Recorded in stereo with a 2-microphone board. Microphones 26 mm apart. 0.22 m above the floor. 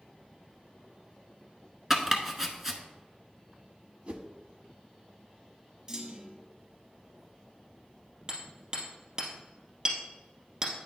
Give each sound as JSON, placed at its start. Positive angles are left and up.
{"t": 1.9, "sound": "chopping", "side_deg": -15, "distance_m": 1.1}
{"t": 4.1, "sound": "a whoosh", "side_deg": -50, "distance_m": 0.7}
{"t": 5.9, "sound": "a clunk", "side_deg": -30, "distance_m": 1.4}
{"t": 8.3, "sound": "hammering", "side_deg": -30, "distance_m": 2.5}